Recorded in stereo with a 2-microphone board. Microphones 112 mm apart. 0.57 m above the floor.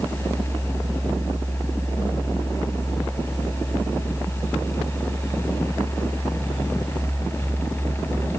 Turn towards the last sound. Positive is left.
No sound to turn to.